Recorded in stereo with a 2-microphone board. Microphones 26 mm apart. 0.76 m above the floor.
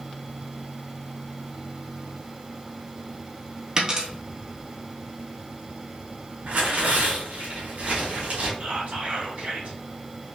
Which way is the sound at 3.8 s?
30° right (ahead or behind).